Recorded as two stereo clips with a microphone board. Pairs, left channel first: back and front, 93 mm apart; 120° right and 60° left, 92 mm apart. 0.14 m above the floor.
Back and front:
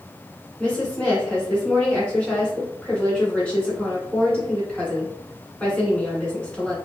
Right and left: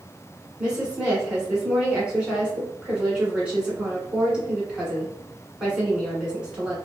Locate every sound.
0.6 s a woman speaking: 120° left, 1.4 m